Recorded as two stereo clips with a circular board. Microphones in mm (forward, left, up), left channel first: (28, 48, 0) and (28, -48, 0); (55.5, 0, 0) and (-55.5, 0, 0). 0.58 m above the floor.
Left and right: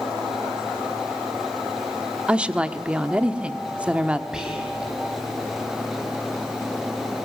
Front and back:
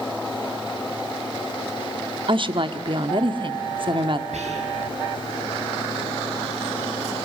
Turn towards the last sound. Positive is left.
turn(degrees=-175)